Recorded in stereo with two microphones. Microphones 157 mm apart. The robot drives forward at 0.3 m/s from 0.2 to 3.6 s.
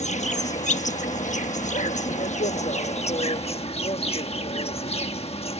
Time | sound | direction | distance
0.0 | an insect | 50° left (ahead or behind) | ?